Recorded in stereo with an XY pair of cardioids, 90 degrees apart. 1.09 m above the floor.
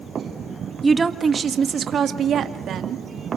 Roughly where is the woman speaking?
Ahead.